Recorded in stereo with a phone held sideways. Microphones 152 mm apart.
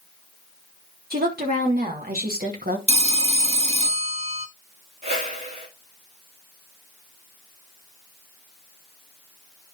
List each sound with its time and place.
1.1 s a woman speaking: 80° right, 3.5 m; by 2.8 s 75° right (ahead or behind), 2 m
2.9 s a phone ringing: 45° right (ahead or behind), 0.8 m
5.0 s a whoosh: 55° right (ahead or behind), 3.5 m